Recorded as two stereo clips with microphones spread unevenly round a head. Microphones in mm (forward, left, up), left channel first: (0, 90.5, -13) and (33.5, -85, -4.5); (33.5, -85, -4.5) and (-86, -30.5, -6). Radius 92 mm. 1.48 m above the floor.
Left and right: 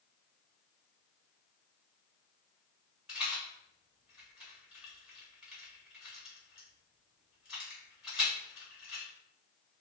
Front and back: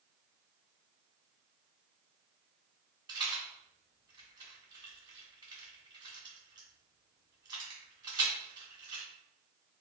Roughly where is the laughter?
No laughter in this recording.